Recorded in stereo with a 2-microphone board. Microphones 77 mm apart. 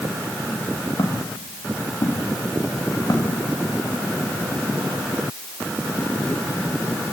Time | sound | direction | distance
1.0 | footsteps | 65° left (ahead or behind) | 6 m